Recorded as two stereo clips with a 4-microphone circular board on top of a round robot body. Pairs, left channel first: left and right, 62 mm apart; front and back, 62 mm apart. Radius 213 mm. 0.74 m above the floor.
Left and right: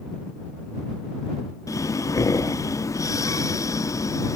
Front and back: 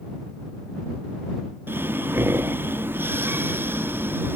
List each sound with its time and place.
1.7 s breathing: 125° left